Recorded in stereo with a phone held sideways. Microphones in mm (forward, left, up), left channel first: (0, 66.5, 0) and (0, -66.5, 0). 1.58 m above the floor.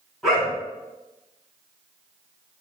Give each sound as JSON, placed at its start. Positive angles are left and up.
{"t": 0.2, "sound": "a dog barking", "side_deg": 0, "distance_m": 3.0}